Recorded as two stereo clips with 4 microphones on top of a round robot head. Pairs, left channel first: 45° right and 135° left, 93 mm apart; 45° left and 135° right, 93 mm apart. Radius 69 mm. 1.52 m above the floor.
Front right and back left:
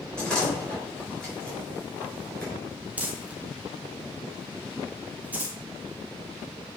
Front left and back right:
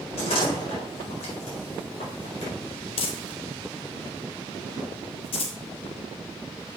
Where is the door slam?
35° left, 4.5 m.